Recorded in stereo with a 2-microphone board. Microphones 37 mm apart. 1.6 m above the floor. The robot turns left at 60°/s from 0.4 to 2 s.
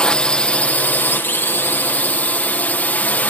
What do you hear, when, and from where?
0.0 s a drone: 150° left; by 3.3 s 55° left